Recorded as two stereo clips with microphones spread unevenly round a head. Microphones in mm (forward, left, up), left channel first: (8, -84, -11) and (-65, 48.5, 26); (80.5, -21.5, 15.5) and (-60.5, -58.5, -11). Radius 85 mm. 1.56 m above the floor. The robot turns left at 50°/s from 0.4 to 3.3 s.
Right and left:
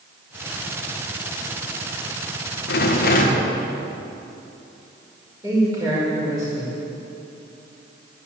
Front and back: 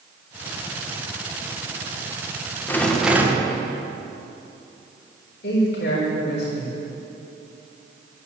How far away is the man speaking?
About 5 m.